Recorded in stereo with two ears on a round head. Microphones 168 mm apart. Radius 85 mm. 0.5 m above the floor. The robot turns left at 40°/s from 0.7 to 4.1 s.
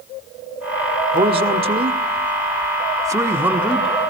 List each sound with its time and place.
1.1 s a man speaking: 25° right (ahead or behind), 1.0 m; by 4.0 s centre (ahead or behind), 1.0 m